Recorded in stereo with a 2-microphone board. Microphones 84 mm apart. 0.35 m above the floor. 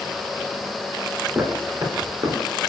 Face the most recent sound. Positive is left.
turn(degrees=-55)  # may be behind; listen again after turning